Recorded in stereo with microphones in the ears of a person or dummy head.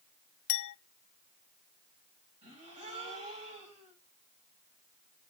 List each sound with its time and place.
0.5 s a clink: 70° left (ahead or behind), 0.7 m
2.4 s a gasp: 30° right (ahead or behind), 7 m